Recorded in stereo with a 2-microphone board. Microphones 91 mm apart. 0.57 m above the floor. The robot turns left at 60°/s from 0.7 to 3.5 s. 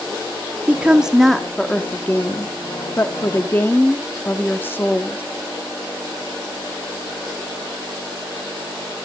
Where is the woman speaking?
145° right, 0.9 m; by 5.2 s 45° left, 0.9 m.